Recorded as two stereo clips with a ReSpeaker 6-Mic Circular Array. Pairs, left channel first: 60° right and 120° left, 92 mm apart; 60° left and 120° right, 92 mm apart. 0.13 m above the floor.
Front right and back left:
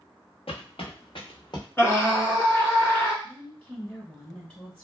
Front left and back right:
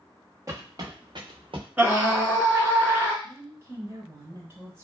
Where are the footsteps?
65° right, 1.6 m; by 1.7 s 100° right, 1.1 m.